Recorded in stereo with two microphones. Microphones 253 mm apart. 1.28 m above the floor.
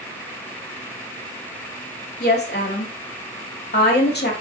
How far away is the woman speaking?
About 2.5 m.